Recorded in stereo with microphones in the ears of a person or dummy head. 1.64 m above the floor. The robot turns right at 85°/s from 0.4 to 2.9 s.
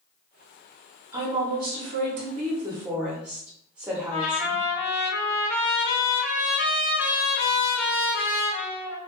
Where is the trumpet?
60° left (ahead or behind), 1.8 m.